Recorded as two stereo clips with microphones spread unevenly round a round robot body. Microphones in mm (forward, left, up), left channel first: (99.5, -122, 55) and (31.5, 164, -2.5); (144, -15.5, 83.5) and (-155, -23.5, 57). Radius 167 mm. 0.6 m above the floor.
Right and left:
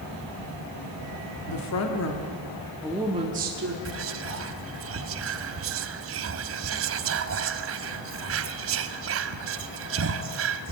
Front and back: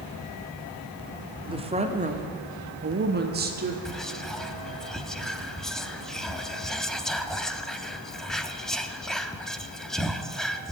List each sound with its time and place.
1.4 s a woman speaking: 110° right, 1.7 m; by 3.8 s 130° left, 1.5 m
3.9 s whispering: 95° left, 0.9 m